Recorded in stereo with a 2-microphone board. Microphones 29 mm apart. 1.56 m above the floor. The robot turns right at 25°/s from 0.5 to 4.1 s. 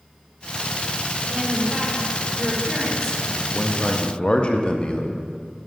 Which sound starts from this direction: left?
A man speaking, at 3.5 s.